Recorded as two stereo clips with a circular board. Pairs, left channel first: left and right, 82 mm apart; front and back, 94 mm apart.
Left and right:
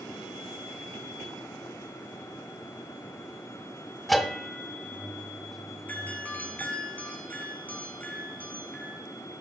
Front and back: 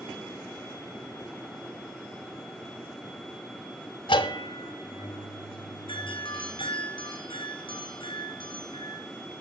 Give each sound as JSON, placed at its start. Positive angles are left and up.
{"t": 4.1, "sound": "a bell", "azimuth_deg": 0, "distance_m": 1.2}
{"t": 5.9, "sound": "a doorbell", "azimuth_deg": 20, "distance_m": 4.0}